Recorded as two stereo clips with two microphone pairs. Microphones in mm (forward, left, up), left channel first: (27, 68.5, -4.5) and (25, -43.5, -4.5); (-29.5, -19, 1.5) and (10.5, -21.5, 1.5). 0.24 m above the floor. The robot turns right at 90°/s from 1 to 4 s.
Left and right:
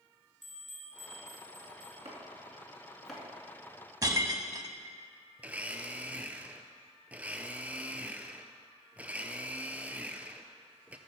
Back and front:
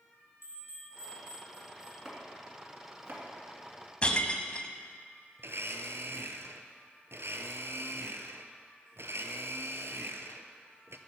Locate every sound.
0.4 s a bell: 5° right, 4 m; by 1.9 s 85° left, 4 m
2.0 s chopping: 95° right, 2 m; by 3.2 s 15° left, 2 m
4.0 s breaking glass: 130° right, 0.6 m
5.4 s a blender: 10° right, 0.6 m